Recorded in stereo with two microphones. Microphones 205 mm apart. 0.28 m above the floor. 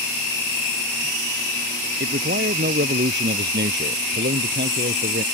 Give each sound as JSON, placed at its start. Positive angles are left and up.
{"t": 2.0, "sound": "a man speaking", "side_deg": -60}